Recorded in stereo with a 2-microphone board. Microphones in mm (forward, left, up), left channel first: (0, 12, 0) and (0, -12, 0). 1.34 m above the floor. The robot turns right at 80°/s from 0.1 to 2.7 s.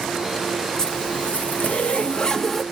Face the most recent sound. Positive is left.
turn(degrees=180)